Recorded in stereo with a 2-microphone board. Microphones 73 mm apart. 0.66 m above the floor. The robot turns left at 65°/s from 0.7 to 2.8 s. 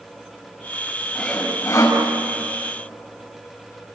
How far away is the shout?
I don't hear a shout.